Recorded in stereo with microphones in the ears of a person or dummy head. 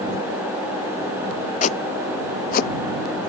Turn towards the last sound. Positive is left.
turn(degrees=50)  # may be behind; listen again after turning